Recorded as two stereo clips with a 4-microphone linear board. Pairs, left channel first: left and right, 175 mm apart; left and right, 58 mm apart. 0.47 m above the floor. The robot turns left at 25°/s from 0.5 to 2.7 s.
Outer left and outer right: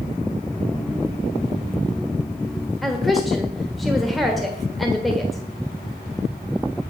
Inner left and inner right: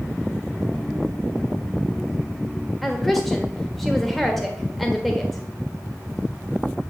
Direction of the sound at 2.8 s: Centre (ahead or behind).